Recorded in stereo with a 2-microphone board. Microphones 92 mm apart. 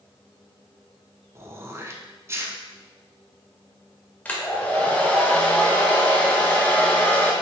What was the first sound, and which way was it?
Throat clearing, 30° right (ahead or behind).